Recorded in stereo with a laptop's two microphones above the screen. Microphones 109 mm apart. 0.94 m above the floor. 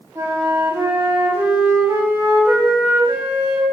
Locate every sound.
0.1 s a flute: 20° right (ahead or behind), 5.5 m